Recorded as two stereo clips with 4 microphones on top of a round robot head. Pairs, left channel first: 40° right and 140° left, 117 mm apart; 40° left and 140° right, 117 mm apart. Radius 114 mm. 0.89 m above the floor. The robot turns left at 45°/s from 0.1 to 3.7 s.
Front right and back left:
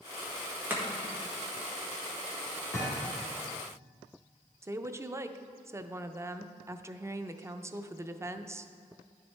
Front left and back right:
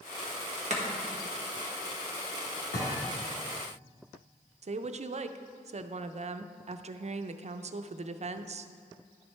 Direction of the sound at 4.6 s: 155° right.